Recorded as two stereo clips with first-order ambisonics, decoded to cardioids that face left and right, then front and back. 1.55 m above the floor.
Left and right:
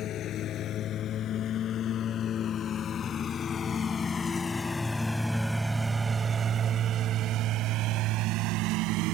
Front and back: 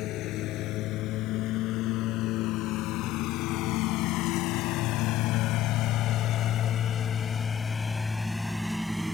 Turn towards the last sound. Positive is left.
turn(degrees=-95)